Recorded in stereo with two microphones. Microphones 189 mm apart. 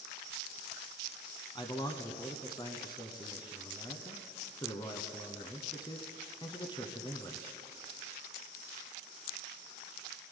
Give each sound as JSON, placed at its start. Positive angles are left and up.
{"t": 1.6, "sound": "a man speaking", "side_deg": 25, "distance_m": 1.1}